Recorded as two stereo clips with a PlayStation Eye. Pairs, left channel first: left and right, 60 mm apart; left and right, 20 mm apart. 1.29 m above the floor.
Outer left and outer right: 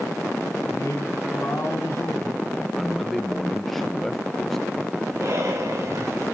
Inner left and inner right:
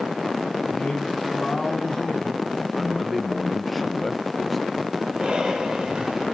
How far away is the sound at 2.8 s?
About 0.6 m.